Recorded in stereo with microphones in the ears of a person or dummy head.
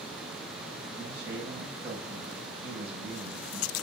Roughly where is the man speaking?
Centre.